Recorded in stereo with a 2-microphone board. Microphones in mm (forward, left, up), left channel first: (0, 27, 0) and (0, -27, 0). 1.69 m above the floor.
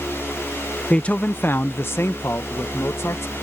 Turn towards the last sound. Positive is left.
turn(degrees=55)  # may be behind; listen again after turning